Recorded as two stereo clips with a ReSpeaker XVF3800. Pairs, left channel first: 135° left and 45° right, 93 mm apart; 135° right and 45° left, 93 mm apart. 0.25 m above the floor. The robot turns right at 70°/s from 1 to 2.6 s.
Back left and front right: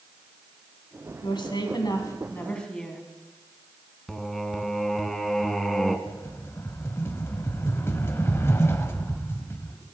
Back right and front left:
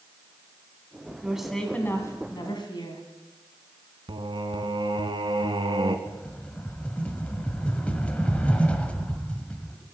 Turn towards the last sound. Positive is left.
turn(degrees=160)